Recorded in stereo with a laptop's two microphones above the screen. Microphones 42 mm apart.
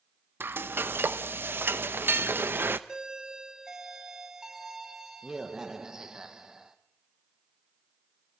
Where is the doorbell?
15° right (ahead or behind), 1.4 m.